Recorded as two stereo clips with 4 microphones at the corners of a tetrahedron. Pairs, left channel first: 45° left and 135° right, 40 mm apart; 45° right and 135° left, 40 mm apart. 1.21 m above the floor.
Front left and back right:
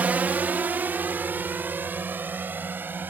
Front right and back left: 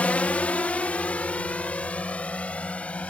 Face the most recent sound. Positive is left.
turn(degrees=-100)